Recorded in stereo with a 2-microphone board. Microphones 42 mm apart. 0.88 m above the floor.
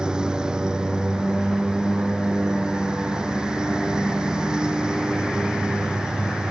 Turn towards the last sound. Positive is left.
turn(degrees=-20)  # may be behind; listen again after turning